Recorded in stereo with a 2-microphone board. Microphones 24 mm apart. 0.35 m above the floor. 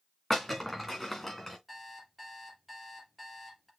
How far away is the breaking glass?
About 3 m.